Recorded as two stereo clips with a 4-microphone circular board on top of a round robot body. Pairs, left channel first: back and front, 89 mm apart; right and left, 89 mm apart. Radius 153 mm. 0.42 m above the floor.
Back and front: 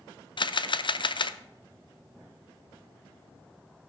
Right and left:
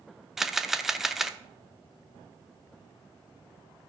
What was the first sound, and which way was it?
A camera shutter, 175° left.